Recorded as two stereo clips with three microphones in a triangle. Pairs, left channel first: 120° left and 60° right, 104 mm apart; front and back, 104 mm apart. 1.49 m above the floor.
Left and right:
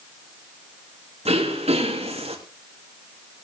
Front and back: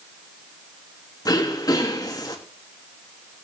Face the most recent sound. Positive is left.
turn(degrees=-55)